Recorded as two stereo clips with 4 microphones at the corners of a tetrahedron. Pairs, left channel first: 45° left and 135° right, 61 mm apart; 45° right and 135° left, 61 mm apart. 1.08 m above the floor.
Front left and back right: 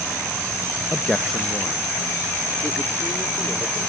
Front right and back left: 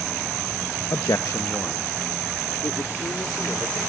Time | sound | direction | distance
0.9 | a man speaking | 35° right | ?